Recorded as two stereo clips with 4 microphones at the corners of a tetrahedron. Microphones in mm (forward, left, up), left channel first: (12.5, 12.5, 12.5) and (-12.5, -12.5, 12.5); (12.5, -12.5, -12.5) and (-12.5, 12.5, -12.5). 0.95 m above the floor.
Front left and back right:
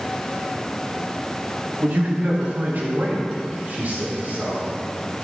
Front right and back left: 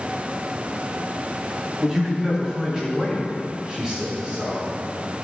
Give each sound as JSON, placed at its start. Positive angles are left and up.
{"t": 1.8, "sound": "a man speaking", "azimuth_deg": -150, "distance_m": 1.8}